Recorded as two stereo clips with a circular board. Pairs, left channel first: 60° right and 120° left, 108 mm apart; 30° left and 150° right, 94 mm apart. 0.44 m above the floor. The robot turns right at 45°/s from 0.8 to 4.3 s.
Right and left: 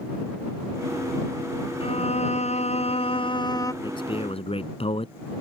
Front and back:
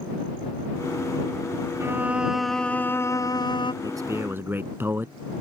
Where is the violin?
85° right; by 3.7 s straight ahead.